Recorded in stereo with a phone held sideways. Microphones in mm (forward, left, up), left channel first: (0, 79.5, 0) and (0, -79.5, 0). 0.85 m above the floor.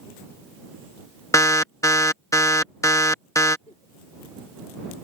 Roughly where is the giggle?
Left.